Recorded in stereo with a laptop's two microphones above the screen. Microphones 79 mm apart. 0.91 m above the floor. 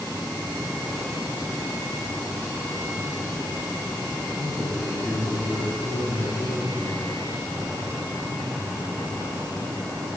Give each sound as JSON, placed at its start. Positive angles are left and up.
{"t": 4.4, "sound": "a man speaking", "side_deg": 35, "distance_m": 9.5}